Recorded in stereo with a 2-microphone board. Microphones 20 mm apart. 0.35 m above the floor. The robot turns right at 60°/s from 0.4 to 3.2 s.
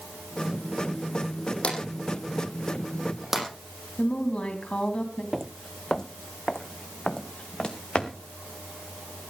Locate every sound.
1.6 s a drawer: 80° left, 6.5 m; by 3.5 s 10° right (ahead or behind), 6.5 m
4.0 s a woman speaking: 65° left (ahead or behind), 2.5 m
5.3 s footsteps: 10° right (ahead or behind), 0.5 m; by 8.1 s 40° left (ahead or behind), 3 m